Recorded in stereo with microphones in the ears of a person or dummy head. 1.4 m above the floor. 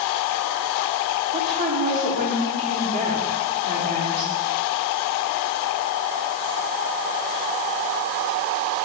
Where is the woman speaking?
45° right (ahead or behind), 2.5 m.